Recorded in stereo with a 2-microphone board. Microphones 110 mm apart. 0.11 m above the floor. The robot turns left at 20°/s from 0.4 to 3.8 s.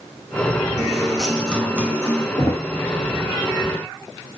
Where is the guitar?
170° right, 4 m; by 2.3 s 160° left, 4 m.